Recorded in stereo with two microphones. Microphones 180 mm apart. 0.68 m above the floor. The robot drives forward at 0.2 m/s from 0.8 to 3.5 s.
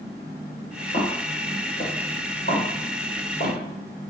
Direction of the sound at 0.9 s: 45° left (ahead or behind).